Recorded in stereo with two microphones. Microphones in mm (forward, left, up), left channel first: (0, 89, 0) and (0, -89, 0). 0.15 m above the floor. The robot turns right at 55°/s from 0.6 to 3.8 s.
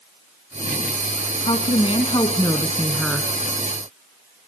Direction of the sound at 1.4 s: 85° left.